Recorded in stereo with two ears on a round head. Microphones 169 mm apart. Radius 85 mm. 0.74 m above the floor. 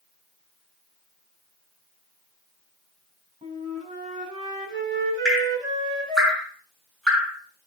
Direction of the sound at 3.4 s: 25° right (ahead or behind).